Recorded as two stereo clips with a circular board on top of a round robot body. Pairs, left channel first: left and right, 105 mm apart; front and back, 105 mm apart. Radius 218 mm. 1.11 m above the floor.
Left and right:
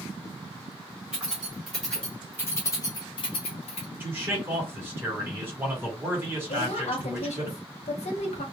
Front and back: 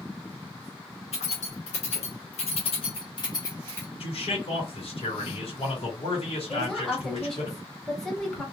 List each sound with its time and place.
1.1 s keys jangling: 10° right, 1.3 m; by 3.9 s 75° left, 0.9 m
4.0 s a man speaking: 20° right, 1.5 m
6.5 s a woman speaking: 85° left, 0.9 m